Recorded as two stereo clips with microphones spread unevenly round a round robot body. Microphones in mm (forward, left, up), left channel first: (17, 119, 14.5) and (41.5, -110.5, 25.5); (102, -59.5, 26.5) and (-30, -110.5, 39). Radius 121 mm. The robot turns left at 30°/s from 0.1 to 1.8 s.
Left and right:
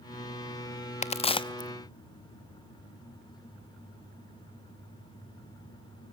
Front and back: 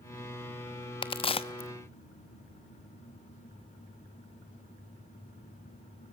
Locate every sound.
1.0 s a crack: 50° left, 1.0 m; by 1.7 s 30° left, 1.0 m